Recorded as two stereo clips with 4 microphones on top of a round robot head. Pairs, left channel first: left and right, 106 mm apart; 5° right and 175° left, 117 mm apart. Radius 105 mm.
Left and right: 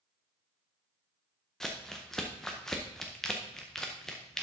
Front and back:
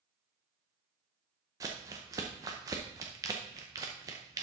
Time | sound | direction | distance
1.6 | crumpling | 170° left | 0.6 m